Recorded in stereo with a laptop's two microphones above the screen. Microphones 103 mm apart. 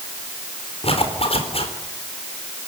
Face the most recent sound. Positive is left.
turn(degrees=70)  # may be behind; listen again after turning